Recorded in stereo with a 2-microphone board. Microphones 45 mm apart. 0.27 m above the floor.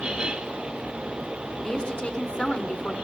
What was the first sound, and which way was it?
A woman speaking, 20° left (ahead or behind).